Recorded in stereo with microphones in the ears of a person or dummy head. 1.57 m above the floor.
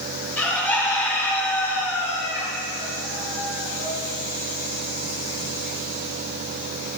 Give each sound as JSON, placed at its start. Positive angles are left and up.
{"t": 0.4, "sound": "a bird", "side_deg": 5, "distance_m": 3.5}